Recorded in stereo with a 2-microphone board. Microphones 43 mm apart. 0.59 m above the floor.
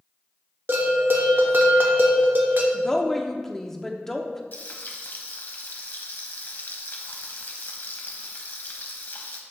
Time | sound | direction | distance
0.7 | a bell | 55° right (ahead or behind) | 1.1 m
2.7 | a woman speaking | 10° left (ahead or behind) | 0.8 m
4.5 | frying | 50° left (ahead or behind) | 1.0 m